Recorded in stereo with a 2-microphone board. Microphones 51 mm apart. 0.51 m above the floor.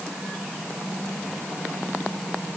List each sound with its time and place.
Only background noise.